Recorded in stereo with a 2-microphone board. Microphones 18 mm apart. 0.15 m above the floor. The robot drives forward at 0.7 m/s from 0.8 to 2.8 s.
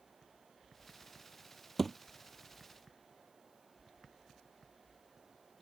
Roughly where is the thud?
Centre.